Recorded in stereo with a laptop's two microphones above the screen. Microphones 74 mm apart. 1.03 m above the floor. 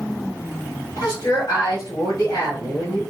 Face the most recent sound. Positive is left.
turn(degrees=65)  # may be behind; listen again after turning